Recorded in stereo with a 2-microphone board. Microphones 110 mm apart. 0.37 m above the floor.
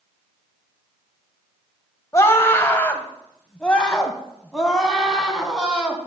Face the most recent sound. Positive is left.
turn(degrees=-5)  # may be behind; listen again after turning